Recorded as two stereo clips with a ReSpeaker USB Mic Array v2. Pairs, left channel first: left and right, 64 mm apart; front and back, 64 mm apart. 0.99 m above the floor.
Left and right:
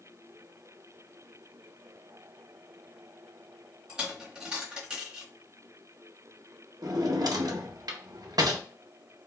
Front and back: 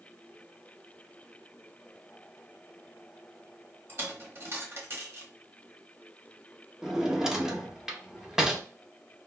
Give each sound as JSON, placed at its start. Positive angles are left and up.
{"t": 3.9, "sound": "a dropped coin", "azimuth_deg": -160, "distance_m": 1.0}
{"t": 6.8, "sound": "a drawer", "azimuth_deg": -100, "distance_m": 0.5}